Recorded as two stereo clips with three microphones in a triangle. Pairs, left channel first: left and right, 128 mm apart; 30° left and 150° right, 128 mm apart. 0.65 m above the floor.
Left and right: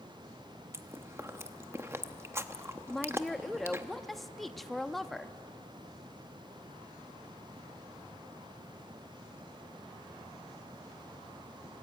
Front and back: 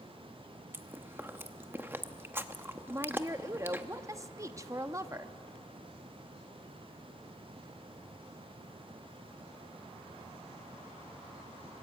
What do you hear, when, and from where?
0.7 s chewing: 110° right, 0.9 m
2.9 s a woman speaking: 175° left, 0.7 m